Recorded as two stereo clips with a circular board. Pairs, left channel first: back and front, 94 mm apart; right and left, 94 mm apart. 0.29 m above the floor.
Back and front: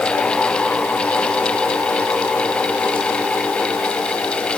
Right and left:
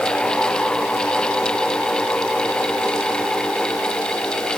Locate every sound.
Only background noise.